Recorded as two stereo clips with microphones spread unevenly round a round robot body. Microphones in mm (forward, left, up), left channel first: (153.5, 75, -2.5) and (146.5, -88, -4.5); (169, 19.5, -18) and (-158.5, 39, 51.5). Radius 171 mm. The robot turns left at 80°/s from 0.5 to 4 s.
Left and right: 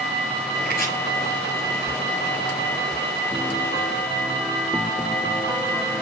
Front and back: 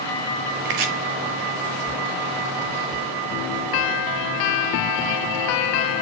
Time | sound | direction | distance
0.7 | chopping | 145° right | 2 m